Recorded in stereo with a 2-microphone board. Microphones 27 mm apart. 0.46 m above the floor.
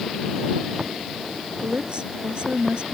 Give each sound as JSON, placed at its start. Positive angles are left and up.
{"t": 1.6, "sound": "a woman speaking", "side_deg": -40}